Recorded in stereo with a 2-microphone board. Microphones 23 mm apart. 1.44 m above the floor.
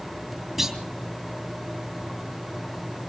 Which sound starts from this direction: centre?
A clunk, at 0.6 s.